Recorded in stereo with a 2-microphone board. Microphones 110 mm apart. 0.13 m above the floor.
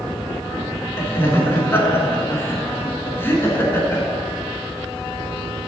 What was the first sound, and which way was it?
Laughter, 20° left (ahead or behind).